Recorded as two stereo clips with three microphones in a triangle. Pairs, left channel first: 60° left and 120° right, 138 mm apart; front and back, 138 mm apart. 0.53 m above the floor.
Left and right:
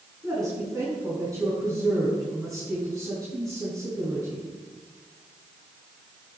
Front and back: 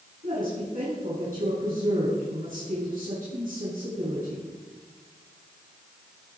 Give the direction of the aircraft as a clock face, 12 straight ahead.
I don't hear an aircraft.